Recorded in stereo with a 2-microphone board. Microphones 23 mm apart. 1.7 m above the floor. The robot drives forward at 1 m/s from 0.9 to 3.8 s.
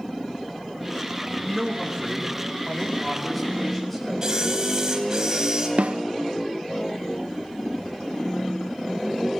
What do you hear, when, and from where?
1.4 s a man speaking: 10° left (ahead or behind), 3.5 m; by 4.1 s 5° left (ahead or behind), 6 m
4.2 s a camera shutter: 25° right (ahead or behind), 3.5 m
5.8 s a snare drum: 65° right (ahead or behind), 0.5 m